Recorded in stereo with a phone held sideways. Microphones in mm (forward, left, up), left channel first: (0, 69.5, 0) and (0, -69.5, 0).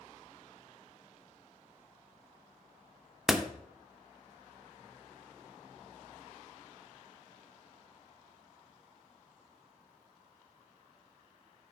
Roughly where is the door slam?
Centre.